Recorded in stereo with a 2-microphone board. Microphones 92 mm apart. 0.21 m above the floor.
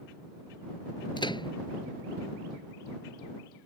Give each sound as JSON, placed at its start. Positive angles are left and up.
{"t": 1.2, "sound": "a microwave", "side_deg": 65}